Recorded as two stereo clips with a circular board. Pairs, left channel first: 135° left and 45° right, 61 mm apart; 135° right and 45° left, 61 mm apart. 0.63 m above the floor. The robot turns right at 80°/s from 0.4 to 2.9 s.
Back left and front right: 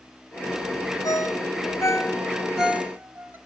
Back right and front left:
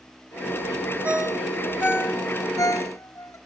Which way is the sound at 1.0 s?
110° left.